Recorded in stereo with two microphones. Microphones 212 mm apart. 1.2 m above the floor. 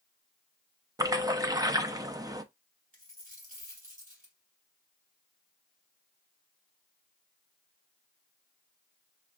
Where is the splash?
20° right (ahead or behind), 0.5 m.